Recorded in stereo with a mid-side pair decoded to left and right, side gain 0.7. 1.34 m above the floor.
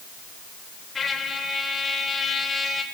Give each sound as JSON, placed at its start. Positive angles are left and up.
{"t": 0.9, "sound": "a trumpet", "azimuth_deg": 20, "distance_m": 4.0}